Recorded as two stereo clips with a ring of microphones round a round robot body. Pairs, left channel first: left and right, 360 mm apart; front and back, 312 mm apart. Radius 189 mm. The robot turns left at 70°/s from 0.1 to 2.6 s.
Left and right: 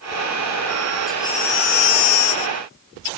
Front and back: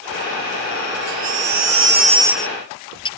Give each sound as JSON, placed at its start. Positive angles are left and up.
{"t": 1.1, "sound": "a baby crying", "azimuth_deg": 180}